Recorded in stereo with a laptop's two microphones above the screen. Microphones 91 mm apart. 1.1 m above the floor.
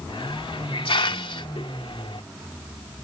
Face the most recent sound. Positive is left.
turn(degrees=75)  # may be behind; listen again after turning